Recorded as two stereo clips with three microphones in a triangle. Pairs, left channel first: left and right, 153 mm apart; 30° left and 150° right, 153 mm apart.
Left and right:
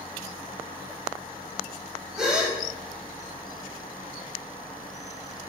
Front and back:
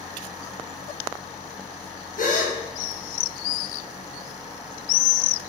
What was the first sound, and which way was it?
A gasp, 5° right.